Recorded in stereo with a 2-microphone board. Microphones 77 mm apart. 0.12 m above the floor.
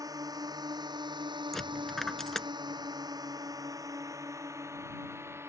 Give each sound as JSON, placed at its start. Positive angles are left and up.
{"t": 0.0, "sound": "a drone", "side_deg": -50}
{"t": 1.5, "sound": "a dropped coin", "side_deg": 5}